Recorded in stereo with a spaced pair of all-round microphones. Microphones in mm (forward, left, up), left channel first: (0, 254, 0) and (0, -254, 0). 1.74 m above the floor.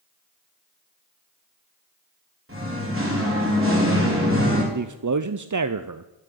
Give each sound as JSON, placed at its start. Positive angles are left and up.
{"t": 2.5, "sound": "singing", "side_deg": -25, "distance_m": 4.5}
{"t": 4.7, "sound": "a man speaking", "side_deg": -40, "distance_m": 0.5}